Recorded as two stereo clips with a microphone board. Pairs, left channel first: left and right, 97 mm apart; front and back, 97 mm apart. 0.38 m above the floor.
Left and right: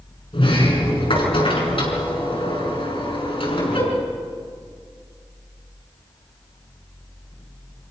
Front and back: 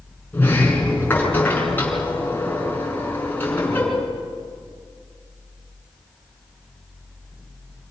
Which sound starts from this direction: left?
A sliding door, at 0.3 s.